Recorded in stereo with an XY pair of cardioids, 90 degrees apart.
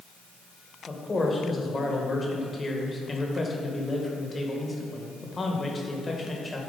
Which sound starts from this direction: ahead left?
A man speaking, at 0.9 s.